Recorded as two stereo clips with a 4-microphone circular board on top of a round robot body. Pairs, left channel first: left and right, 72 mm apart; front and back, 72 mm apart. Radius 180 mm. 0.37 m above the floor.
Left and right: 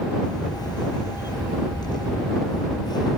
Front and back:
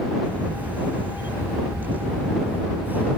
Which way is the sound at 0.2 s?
115° left.